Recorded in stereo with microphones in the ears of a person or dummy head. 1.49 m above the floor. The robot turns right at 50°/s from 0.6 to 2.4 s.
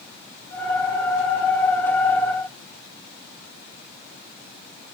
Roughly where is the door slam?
No door slam in this recording.